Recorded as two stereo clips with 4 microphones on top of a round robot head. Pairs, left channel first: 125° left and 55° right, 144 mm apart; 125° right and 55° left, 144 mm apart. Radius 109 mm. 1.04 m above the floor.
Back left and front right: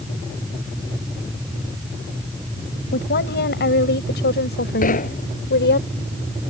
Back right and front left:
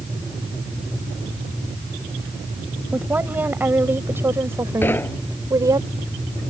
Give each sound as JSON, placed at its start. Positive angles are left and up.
{"t": 2.9, "sound": "a woman speaking", "azimuth_deg": 135}
{"t": 4.8, "sound": "knocking", "azimuth_deg": 160}